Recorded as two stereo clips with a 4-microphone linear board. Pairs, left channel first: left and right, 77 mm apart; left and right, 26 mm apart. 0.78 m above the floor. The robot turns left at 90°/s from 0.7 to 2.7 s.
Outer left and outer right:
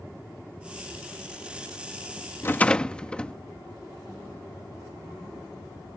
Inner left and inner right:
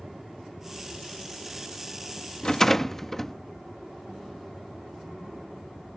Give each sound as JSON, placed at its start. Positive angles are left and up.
{"t": 2.4, "sound": "a rattle", "side_deg": 30}